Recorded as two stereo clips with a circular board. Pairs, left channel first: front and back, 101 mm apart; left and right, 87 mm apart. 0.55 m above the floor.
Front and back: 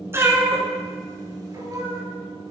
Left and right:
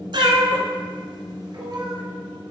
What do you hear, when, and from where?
0.1 s a cat meowing: 115° right, 1.4 m; by 2.0 s 130° right, 2.5 m